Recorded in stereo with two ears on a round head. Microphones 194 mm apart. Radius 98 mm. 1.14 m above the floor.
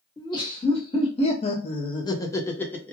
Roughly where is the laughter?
Centre.